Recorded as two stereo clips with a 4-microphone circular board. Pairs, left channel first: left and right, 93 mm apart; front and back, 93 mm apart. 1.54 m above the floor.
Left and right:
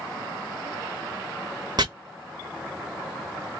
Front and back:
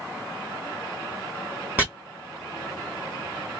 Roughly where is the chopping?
Behind right.